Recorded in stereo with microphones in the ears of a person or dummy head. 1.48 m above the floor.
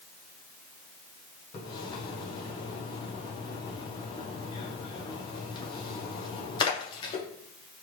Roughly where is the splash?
Left.